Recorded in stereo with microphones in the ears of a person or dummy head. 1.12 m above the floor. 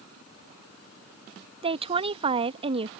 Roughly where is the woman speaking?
Right.